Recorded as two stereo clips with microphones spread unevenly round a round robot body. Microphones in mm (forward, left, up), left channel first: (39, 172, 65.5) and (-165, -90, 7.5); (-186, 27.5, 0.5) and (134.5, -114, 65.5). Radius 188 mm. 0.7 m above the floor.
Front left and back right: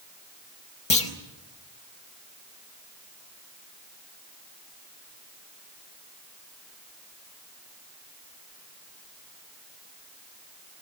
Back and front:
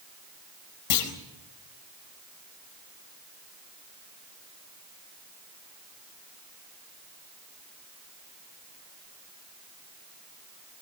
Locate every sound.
0.9 s a clunk: 125° left, 4.5 m